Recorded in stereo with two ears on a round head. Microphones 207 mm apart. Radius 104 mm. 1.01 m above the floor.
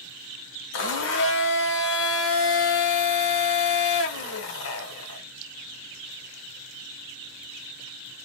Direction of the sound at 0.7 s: 55° left (ahead or behind).